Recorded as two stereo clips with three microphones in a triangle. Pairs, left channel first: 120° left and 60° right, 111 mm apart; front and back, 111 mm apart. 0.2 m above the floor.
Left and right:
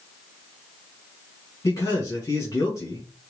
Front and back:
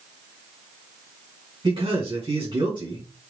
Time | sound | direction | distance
1.6 | a man speaking | 170° left | 1.9 m